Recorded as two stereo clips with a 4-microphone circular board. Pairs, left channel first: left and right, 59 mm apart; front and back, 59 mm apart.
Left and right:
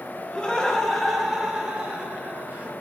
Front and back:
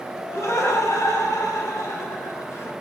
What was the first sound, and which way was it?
Laughter, 20° left.